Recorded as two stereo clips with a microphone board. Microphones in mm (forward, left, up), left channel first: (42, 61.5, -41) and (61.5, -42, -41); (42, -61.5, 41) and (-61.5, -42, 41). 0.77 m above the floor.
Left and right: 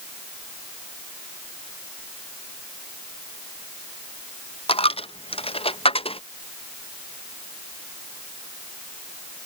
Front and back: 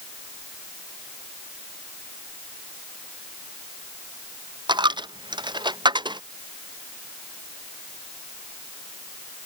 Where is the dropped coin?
125° left.